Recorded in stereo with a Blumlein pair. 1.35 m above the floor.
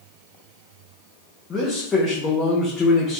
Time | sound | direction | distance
1.5 | a man speaking | 15° left | 0.8 m